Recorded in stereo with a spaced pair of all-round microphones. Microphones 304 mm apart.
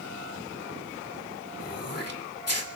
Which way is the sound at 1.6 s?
50° left (ahead or behind).